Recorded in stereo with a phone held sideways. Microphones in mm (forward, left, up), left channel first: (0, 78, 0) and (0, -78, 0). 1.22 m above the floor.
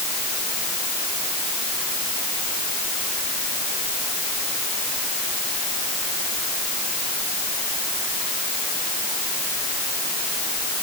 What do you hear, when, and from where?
Only background noise.